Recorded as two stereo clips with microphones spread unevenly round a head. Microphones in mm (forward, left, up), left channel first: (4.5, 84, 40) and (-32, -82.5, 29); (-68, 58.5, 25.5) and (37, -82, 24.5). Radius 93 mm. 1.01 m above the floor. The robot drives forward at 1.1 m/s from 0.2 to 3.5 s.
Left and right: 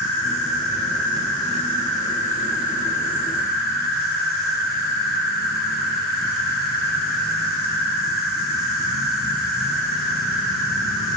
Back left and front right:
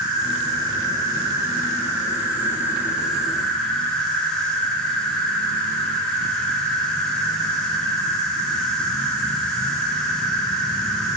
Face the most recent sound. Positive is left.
turn(degrees=40)